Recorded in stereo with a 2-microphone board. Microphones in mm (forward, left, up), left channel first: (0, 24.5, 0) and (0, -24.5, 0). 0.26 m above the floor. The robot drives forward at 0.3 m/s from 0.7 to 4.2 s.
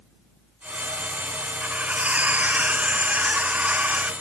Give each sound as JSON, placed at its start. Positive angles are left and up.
{"t": 1.6, "sound": "cutlery clinking", "side_deg": -30}